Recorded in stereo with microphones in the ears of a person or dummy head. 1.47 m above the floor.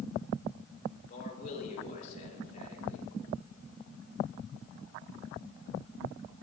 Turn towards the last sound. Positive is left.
turn(degrees=40)  # may be behind; listen again after turning